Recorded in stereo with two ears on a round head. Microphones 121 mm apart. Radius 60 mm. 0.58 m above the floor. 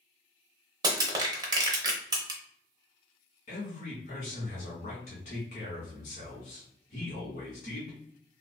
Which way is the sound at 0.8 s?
30° right (ahead or behind).